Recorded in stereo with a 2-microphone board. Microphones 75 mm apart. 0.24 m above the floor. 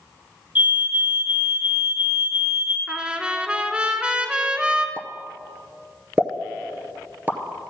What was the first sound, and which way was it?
A fire alarm, 20° right (ahead or behind).